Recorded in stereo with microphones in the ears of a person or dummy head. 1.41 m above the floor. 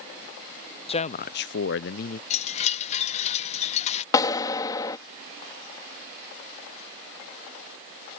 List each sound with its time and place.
0.9 s a man speaking: 30° left (ahead or behind); by 2.2 s 40° left (ahead or behind)
2.3 s a chime: 35° left (ahead or behind)
4.1 s a clap: 20° left (ahead or behind)